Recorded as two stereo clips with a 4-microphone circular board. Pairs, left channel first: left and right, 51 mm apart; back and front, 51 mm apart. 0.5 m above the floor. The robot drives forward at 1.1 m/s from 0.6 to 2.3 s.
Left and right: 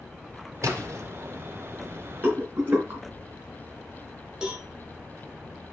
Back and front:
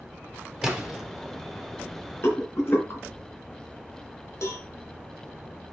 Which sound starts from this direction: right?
A splash, at 0.6 s.